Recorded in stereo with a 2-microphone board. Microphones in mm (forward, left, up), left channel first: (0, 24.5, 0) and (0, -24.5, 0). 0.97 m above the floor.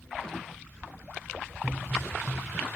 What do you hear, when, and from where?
1.6 s a pop: 45° right (ahead or behind), 1.1 m